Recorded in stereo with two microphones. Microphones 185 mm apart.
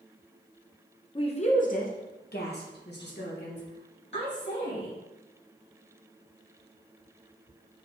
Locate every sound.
1.1 s a woman speaking: 25° left (ahead or behind), 0.6 m; by 5.0 s 80° left, 2.5 m